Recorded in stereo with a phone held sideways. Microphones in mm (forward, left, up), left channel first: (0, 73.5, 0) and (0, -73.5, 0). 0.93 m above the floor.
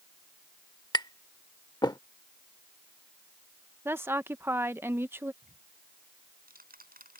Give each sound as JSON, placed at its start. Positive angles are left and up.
{"t": 0.9, "sound": "tapping", "side_deg": 30}
{"t": 3.9, "sound": "a woman speaking", "side_deg": -15}
{"t": 5.4, "sound": "ticking", "side_deg": -85}